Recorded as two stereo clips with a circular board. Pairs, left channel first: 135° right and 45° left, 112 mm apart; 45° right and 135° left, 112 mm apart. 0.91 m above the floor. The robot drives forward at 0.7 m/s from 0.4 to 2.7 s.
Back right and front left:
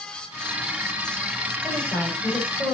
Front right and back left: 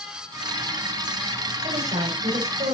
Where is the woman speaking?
145° left, 5 m; by 2.7 s 150° left, 5.5 m.